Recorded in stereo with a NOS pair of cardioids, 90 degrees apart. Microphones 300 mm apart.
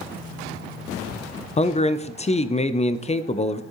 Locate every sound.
1.6 s a man speaking: 25° left, 0.6 m